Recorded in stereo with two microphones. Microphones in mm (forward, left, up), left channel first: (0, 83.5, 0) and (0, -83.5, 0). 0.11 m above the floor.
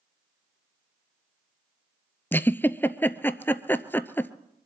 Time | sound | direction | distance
2.3 | a giggle | 10° left (ahead or behind) | 0.5 m